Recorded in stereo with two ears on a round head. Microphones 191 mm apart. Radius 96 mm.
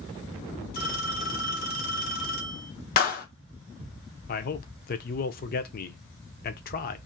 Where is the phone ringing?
45° left (ahead or behind), 1.2 m.